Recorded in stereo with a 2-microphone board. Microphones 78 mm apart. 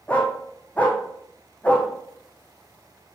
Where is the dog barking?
15° left (ahead or behind), 2 m.